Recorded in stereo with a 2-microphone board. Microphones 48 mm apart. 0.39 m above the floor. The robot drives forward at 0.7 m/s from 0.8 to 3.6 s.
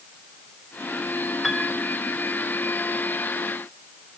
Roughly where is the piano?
Centre.